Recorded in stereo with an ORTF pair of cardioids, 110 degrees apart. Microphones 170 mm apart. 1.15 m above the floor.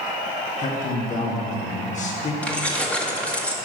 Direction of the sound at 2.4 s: 5° left.